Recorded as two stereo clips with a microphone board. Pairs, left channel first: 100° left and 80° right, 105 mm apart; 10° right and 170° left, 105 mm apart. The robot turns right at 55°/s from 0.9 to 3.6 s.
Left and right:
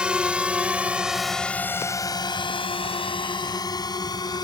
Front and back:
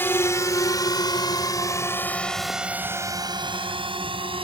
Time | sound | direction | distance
0.0 | a drone | 20° right | ?